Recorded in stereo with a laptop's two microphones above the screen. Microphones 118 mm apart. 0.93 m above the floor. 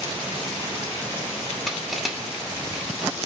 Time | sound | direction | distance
1.7 | crushing | centre (ahead or behind) | 2 m